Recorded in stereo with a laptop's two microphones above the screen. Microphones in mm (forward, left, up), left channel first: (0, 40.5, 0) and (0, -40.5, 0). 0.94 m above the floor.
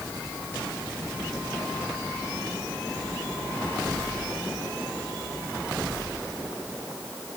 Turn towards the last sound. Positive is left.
No sound to turn to.